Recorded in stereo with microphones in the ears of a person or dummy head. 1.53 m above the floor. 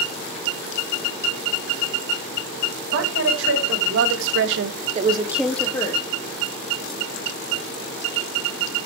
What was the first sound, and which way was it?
A woman speaking, 70° right (ahead or behind).